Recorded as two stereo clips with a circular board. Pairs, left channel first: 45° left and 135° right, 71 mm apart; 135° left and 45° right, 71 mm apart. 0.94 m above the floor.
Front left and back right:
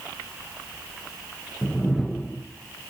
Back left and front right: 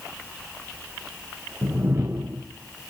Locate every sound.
1.6 s a whoosh: 40° right, 0.6 m